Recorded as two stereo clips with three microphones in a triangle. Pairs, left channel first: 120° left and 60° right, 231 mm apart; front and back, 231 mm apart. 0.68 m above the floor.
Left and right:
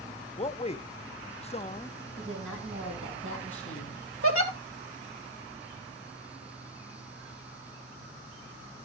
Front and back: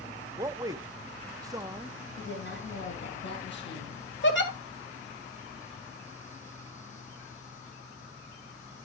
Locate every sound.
0.4 s a man speaking: 125° left, 0.6 m
2.2 s a woman speaking: 40° right, 4 m
4.2 s a giggle: 40° right, 1.7 m